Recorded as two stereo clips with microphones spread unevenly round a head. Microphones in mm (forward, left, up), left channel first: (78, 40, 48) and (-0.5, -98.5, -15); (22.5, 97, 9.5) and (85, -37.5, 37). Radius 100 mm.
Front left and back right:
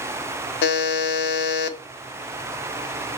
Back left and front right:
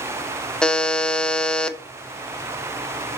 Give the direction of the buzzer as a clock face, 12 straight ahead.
11 o'clock.